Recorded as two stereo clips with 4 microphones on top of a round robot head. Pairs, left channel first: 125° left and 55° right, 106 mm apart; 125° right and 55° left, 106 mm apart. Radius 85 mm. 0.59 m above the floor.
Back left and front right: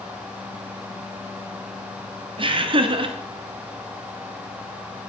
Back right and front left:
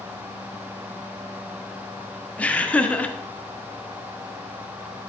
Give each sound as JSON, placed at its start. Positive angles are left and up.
{"t": 2.4, "sound": "laughter", "azimuth_deg": -50, "distance_m": 1.6}